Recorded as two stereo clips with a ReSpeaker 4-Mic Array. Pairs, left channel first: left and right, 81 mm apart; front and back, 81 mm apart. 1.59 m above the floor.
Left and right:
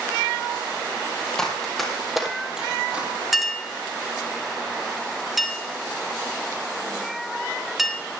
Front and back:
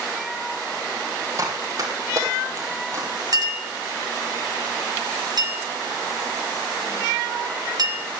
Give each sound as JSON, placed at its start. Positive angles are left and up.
{"t": 1.4, "sound": "running footsteps", "azimuth_deg": 170, "distance_m": 2.0}
{"t": 3.3, "sound": "a clink", "azimuth_deg": -175, "distance_m": 1.5}